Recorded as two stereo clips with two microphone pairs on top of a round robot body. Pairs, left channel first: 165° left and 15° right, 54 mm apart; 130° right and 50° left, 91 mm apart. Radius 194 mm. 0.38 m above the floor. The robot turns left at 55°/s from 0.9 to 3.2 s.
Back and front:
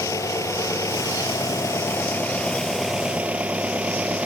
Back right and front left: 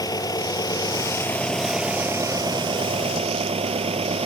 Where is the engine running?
Straight behind; by 4.3 s 55° left.